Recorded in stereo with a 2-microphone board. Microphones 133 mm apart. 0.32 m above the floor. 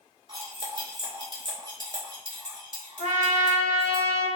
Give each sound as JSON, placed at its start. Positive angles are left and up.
{"t": 0.3, "sound": "cutlery clinking", "side_deg": -35, "distance_m": 0.8}
{"t": 3.0, "sound": "a trumpet", "side_deg": 45, "distance_m": 1.2}